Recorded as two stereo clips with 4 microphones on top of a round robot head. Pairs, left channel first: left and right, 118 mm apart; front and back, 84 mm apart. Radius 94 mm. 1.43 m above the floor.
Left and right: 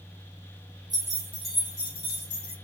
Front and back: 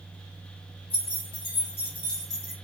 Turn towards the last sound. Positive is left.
turn(degrees=95)